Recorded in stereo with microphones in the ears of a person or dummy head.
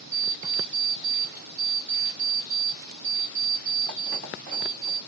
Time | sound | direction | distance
0.1 | an alarm clock | centre (ahead or behind) | 2.5 m